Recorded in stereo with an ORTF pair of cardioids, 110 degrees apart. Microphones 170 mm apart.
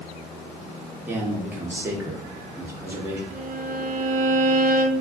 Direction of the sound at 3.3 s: 55° right.